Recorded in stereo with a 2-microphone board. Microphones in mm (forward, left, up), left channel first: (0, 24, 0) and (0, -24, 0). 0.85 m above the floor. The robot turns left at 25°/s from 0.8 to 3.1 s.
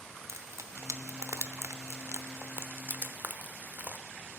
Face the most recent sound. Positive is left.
turn(degrees=-40)  # may be behind; listen again after turning